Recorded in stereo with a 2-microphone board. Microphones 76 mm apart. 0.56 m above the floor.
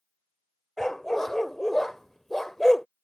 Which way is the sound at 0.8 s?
5° left (ahead or behind).